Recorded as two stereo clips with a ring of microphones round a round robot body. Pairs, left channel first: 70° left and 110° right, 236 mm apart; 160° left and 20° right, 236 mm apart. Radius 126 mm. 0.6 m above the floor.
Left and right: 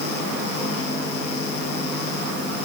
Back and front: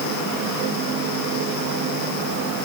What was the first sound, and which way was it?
Only background noise.